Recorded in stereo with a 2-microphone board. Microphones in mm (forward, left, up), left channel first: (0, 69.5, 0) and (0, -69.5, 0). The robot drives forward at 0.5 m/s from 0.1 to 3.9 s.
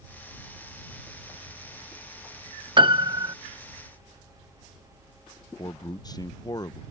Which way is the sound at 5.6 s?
30° left (ahead or behind).